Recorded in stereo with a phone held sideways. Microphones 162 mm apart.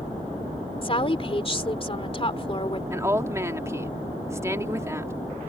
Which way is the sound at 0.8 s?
35° left (ahead or behind).